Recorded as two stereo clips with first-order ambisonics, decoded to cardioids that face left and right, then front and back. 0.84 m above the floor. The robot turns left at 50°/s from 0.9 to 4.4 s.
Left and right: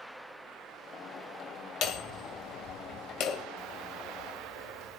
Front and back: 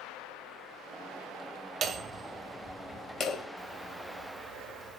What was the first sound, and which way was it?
Hammering, 125° left.